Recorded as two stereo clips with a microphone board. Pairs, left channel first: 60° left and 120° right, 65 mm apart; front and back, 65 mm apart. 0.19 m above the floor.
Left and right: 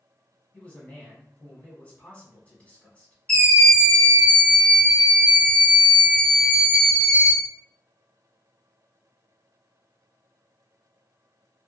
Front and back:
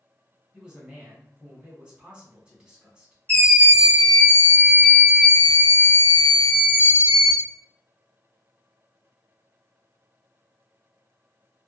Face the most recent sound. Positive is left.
turn(degrees=10)